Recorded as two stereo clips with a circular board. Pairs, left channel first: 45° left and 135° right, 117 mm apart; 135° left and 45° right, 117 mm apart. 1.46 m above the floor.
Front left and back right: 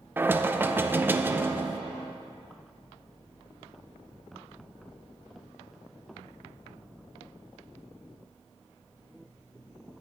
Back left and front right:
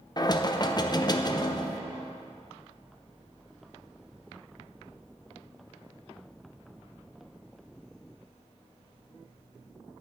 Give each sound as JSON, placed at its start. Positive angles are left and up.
{"t": 0.2, "sound": "knocking", "azimuth_deg": 160, "distance_m": 0.5}